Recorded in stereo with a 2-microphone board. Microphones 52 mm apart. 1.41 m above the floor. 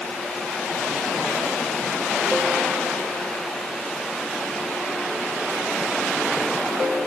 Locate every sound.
Only background noise.